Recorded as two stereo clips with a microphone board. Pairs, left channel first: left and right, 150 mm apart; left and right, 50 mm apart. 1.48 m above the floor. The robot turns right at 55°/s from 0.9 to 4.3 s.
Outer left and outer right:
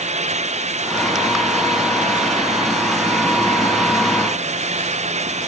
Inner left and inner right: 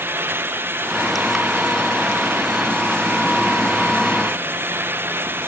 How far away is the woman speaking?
No woman speaking in this recording.